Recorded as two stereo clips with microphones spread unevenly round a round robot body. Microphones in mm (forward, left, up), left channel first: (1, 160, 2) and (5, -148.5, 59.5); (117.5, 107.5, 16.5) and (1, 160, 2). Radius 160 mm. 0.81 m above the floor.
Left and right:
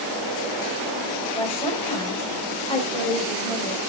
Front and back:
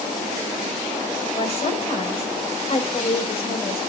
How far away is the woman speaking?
About 4.5 m.